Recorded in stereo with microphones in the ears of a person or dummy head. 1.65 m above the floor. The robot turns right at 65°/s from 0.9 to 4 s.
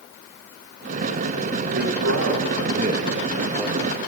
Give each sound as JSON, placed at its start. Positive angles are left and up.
{"t": 1.7, "sound": "a man speaking", "azimuth_deg": -120, "distance_m": 3.0}